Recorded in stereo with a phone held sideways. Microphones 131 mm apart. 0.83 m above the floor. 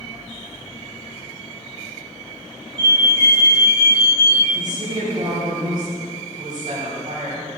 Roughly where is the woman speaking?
Right.